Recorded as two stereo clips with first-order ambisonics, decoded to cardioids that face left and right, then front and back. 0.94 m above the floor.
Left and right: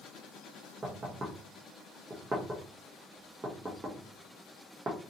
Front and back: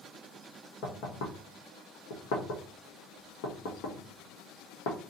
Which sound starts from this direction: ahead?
Knocking, at 0.8 s.